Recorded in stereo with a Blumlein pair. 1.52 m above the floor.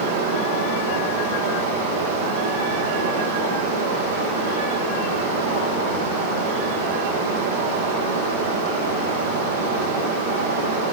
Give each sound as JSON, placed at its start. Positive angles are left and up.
{"t": 0.0, "sound": "running water", "azimuth_deg": -55, "distance_m": 5.5}